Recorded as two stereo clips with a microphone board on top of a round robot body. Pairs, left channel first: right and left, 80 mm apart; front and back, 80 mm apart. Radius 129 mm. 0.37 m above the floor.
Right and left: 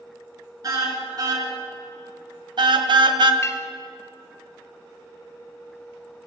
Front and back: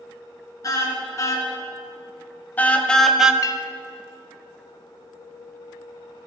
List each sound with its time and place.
0.6 s a car horn: 50° left, 4 m; by 3.3 s 100° left, 1.3 m
3.4 s a clink: 40° right, 1.3 m